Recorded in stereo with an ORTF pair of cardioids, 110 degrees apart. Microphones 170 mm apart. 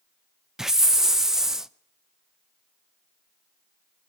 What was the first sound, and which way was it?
A hiss, 5° right.